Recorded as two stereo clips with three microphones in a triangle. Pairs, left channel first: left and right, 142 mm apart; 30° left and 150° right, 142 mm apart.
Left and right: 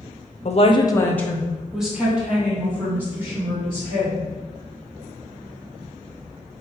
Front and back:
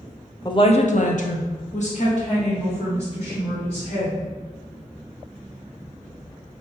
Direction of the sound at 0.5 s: 85° left.